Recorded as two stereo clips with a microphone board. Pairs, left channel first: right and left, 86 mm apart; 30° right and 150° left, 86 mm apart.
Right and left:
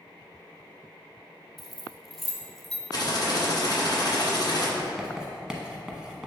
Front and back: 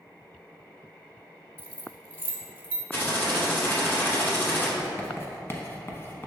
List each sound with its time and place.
1.6 s keys jangling: straight behind, 0.9 m
2.9 s typing on a keyboard: 90° right, 2.0 m
4.8 s writing: 15° left, 0.9 m